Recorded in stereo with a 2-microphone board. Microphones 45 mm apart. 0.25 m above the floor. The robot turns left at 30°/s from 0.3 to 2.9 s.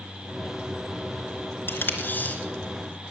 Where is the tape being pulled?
60° left (ahead or behind), 3 m; by 2.4 s 40° left (ahead or behind), 3 m.